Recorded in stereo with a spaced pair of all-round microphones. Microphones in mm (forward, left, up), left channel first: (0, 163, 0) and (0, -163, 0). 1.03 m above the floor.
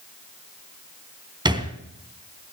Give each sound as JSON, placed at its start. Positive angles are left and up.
{"t": 1.4, "sound": "a thud", "side_deg": -15, "distance_m": 2.5}